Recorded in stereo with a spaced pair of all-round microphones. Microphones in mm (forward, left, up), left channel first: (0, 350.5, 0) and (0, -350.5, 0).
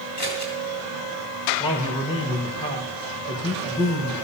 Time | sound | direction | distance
0.2 | scissors | 50° left (ahead or behind) | 3 m
1.6 | a man speaking | 10° left (ahead or behind) | 1.2 m